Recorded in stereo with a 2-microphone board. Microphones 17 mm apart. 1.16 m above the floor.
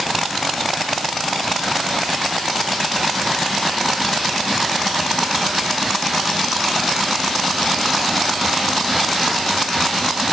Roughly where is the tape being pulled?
I don't hear tape being pulled.